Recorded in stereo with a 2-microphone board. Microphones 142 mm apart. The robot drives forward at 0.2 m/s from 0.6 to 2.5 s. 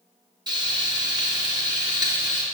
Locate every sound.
0.5 s frying: 30° right (ahead or behind), 2.5 m; by 2.4 s 25° right (ahead or behind), 2.5 m